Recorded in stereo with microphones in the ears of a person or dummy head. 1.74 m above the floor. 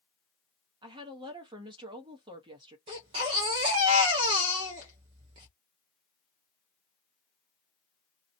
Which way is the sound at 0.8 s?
30° right (ahead or behind).